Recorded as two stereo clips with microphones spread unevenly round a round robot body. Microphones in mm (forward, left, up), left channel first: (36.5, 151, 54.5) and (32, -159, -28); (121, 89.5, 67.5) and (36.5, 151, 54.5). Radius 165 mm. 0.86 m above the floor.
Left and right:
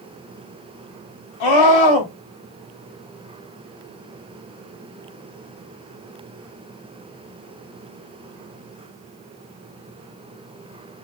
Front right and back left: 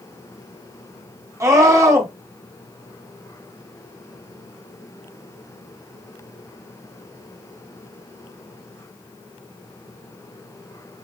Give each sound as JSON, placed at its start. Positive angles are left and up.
{"t": 1.4, "sound": "a scream", "azimuth_deg": 85, "distance_m": 3.0}